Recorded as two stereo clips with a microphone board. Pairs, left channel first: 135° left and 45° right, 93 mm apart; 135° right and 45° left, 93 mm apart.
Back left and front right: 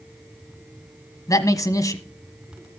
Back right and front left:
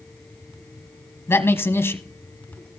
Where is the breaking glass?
No breaking glass in this recording.